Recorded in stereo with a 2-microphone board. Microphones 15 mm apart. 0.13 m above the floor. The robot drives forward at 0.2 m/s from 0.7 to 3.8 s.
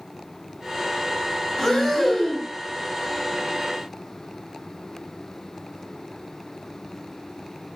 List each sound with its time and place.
1.6 s breathing: 25° left (ahead or behind), 2 m